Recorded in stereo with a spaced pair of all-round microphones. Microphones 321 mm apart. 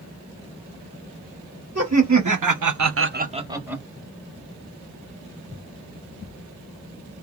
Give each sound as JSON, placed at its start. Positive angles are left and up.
{"t": 1.8, "sound": "laughter", "side_deg": -50, "distance_m": 1.0}